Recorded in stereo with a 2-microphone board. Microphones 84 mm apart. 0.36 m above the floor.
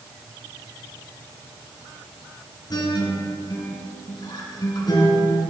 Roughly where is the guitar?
Left.